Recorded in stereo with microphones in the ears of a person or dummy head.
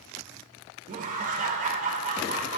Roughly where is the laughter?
Right.